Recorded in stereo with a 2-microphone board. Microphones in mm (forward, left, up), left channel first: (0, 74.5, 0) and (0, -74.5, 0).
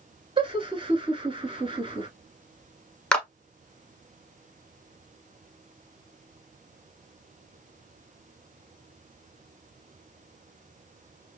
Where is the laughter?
35° right (ahead or behind), 1.3 m.